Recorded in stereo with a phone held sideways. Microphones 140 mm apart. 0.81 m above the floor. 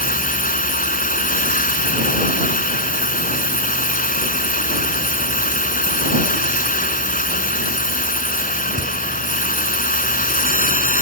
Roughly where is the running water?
Left.